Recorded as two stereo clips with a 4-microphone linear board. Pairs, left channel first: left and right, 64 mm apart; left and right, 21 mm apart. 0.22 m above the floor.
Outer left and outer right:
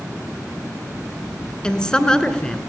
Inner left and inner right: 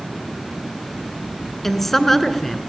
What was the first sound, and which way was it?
A woman speaking, 15° left (ahead or behind).